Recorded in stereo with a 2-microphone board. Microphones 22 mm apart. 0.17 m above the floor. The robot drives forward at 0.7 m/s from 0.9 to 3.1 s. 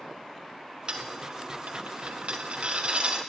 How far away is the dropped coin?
About 1.1 m.